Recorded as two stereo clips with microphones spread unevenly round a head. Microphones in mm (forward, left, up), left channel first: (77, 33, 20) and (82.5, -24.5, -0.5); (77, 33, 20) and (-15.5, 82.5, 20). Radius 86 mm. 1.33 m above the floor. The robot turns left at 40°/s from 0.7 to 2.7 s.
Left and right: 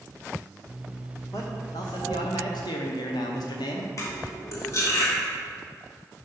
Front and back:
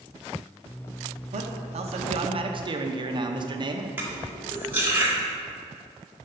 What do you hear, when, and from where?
1.3 s a man speaking: 165° left, 0.8 m; by 3.9 s 110° left, 0.8 m
4.0 s cutlery clinking: 80° left, 1.7 m